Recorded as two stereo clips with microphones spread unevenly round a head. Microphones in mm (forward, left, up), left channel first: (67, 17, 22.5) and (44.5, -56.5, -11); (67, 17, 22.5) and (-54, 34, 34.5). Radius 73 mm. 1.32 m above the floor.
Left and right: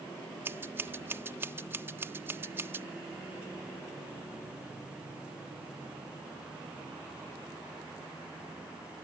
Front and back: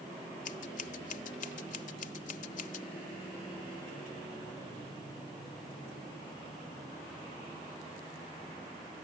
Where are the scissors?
40° right.